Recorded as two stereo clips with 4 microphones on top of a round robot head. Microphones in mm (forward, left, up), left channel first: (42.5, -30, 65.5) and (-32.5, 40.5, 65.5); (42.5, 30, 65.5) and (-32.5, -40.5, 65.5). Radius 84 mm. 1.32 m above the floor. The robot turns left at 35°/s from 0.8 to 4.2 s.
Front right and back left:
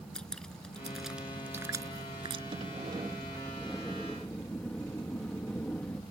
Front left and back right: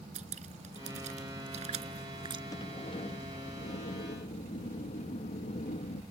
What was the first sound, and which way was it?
Dripping, 130° right.